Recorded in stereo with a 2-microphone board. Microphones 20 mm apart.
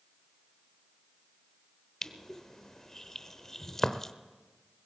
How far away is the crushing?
About 0.8 m.